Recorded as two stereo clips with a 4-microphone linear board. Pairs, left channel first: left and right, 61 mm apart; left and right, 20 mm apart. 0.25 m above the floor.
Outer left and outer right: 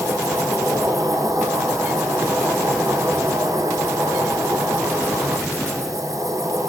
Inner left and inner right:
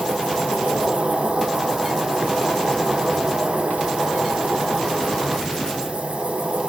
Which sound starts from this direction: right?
An insect, at 0.0 s.